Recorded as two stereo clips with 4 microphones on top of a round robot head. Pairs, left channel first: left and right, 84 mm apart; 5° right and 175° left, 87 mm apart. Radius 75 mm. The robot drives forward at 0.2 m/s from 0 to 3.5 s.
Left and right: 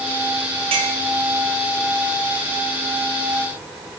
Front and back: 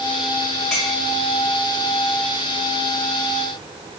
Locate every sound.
0.7 s a clink: 90° right, 2 m; by 0.9 s 95° right, 2 m